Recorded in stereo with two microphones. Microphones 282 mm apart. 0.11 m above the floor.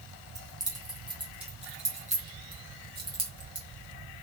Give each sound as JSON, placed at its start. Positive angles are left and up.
{"t": 0.3, "sound": "keys jangling", "side_deg": -10, "distance_m": 3.0}